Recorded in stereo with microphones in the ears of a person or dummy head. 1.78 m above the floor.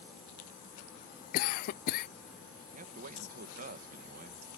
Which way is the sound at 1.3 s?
50° left (ahead or behind).